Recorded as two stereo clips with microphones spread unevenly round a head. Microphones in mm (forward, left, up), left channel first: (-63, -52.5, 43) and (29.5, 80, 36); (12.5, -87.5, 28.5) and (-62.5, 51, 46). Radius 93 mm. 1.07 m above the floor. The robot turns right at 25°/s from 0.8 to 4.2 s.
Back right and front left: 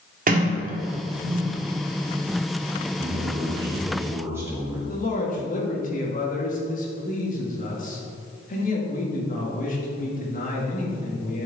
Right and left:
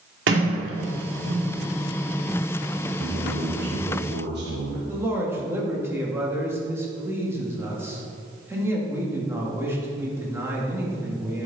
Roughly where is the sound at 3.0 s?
Left.